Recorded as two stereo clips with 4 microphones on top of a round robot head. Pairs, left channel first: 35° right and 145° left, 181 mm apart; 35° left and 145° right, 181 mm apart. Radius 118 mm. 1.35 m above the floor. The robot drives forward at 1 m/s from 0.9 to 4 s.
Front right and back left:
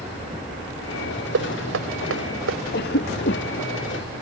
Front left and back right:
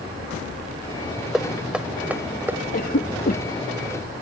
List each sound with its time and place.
1.3 s knocking: 125° left; by 2.6 s 135° left
2.7 s a cough: 5° right